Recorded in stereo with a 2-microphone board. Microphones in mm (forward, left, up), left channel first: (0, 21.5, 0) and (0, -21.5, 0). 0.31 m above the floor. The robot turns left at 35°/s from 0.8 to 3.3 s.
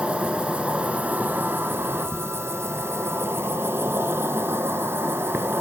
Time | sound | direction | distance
0.0 | an insect | 30° right | 1.3 m